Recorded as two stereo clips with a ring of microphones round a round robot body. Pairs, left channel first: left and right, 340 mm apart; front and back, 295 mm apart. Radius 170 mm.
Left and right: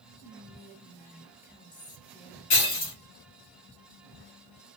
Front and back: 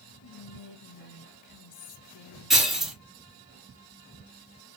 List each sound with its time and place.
0.2 s whispering: 20° left, 0.9 m
2.5 s breaking glass: 90° left, 3 m